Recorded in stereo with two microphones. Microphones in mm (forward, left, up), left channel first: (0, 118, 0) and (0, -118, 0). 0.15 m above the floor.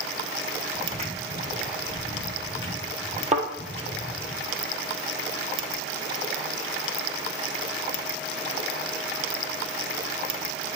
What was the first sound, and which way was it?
Footsteps, 30° right (ahead or behind).